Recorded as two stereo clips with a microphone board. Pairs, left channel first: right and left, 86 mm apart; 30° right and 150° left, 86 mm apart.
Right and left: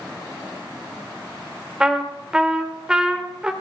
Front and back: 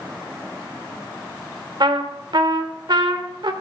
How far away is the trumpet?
About 1.2 m.